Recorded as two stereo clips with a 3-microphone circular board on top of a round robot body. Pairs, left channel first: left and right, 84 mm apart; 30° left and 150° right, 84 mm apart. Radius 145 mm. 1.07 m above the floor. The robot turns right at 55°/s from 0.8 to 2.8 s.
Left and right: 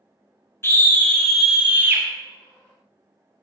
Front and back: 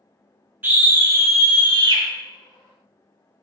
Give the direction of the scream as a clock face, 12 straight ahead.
7 o'clock.